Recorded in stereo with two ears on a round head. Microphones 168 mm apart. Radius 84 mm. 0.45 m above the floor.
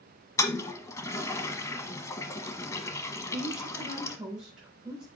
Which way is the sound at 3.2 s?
5° right (ahead or behind).